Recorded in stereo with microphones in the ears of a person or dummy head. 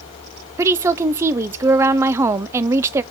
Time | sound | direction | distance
0.6 | a woman speaking | 15° right (ahead or behind) | 0.6 m